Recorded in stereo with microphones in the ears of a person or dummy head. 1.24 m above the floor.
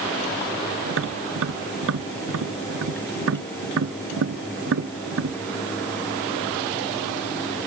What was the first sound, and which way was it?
Tapping, 80° right.